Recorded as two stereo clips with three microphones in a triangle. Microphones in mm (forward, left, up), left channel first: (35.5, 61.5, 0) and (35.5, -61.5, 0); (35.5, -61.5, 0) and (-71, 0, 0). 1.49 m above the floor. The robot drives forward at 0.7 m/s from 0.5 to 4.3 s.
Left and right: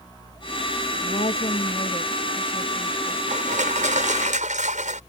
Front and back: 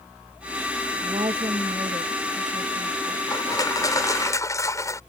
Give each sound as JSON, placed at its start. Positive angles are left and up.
{"t": 1.0, "sound": "a woman speaking", "azimuth_deg": 110}
{"t": 3.3, "sound": "crushing", "azimuth_deg": -90}